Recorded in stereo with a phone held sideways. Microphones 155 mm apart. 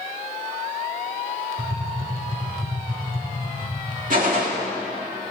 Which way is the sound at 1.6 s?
65° right (ahead or behind).